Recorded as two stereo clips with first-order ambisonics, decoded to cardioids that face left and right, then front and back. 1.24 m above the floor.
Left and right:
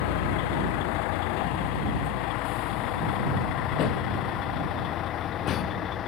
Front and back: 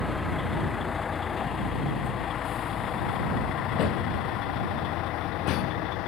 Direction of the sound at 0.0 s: 80° left.